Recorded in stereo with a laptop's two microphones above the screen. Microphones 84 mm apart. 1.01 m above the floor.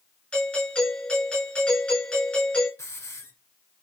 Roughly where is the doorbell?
Centre.